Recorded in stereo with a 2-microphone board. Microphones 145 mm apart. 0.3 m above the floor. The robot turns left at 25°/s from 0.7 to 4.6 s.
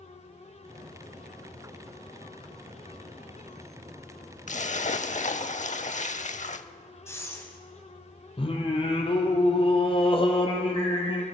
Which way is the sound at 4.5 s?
55° left (ahead or behind).